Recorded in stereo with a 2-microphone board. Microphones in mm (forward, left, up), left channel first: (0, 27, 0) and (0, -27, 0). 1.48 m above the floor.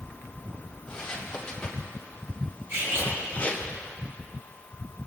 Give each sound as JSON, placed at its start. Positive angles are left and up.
{"t": 0.9, "sound": "footsteps", "side_deg": 10, "distance_m": 3.0}
{"t": 2.7, "sound": "cutlery clinking", "side_deg": -70, "distance_m": 3.5}